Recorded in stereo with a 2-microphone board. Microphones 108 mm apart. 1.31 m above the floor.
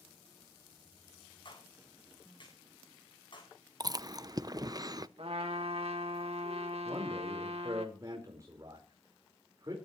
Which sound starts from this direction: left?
A clap, at 1.4 s.